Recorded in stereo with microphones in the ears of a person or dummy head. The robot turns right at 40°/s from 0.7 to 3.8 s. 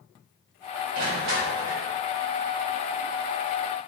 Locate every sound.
0.9 s crushing: 50° right, 2.5 m; by 1.8 s 15° right, 2.5 m